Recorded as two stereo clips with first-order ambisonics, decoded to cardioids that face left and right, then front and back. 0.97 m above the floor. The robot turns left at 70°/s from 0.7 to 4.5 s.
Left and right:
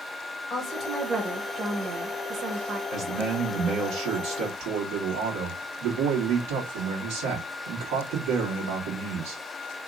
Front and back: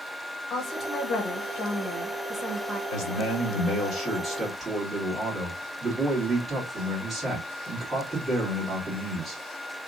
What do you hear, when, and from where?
0.5 s a woman speaking: 45° left, 0.8 m; by 2.8 s 100° right, 0.8 m
2.9 s a man speaking: 10° left, 1.7 m; by 9.4 s 100° right, 1.7 m